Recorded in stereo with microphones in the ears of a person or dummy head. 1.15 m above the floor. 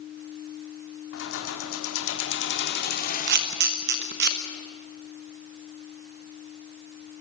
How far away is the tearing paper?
I don't hear tearing paper.